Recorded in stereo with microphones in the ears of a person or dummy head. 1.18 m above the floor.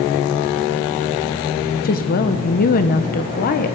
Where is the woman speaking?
40° left (ahead or behind), 0.9 m.